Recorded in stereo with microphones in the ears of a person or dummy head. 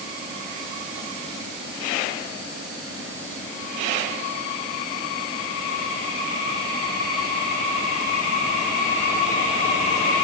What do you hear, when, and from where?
Only background noise.